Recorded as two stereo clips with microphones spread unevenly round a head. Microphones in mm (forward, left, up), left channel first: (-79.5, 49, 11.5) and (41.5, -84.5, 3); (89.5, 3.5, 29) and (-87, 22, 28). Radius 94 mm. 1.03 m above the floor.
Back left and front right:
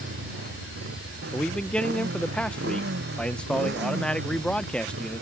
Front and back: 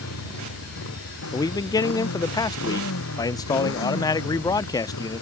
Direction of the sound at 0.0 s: 5° right.